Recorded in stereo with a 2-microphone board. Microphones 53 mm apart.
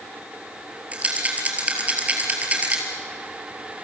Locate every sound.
0.9 s a rattle: 25° right (ahead or behind), 3.5 m